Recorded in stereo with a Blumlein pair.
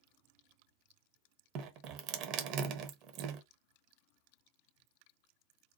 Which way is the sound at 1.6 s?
40° right.